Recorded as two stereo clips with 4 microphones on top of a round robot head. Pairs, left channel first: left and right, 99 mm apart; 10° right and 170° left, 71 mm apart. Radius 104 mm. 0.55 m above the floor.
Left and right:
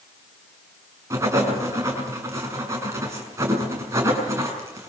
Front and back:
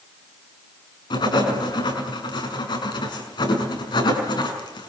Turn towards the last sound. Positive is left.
turn(degrees=-25)